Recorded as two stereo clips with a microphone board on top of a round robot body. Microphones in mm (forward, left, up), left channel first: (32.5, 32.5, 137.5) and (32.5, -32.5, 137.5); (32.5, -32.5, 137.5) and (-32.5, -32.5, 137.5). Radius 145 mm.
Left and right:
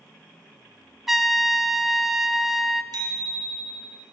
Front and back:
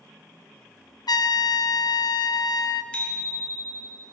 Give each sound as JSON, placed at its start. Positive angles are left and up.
{"t": 1.1, "sound": "a trumpet", "azimuth_deg": -5, "distance_m": 0.7}
{"t": 2.9, "sound": "a bicycle bell", "azimuth_deg": -75, "distance_m": 3.5}